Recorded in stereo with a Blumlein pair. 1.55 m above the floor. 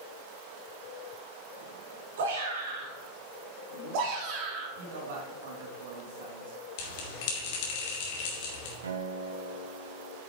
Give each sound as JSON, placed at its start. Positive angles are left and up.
{"t": 2.2, "sound": "a shout", "azimuth_deg": -60, "distance_m": 4.0}
{"t": 4.8, "sound": "a man speaking", "azimuth_deg": -55, "distance_m": 2.5}
{"t": 6.8, "sound": "a bell", "azimuth_deg": 50, "distance_m": 3.0}
{"t": 8.8, "sound": "a guitar", "azimuth_deg": -65, "distance_m": 1.4}